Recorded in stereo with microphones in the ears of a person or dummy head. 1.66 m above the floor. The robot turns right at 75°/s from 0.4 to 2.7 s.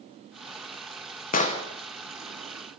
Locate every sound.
1.3 s an explosion: 35° left (ahead or behind), 1.3 m; by 1.6 s 15° left (ahead or behind), 1.3 m